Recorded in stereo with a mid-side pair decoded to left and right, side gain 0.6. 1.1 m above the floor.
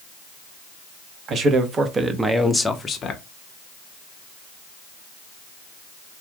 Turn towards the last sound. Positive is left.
turn(degrees=50)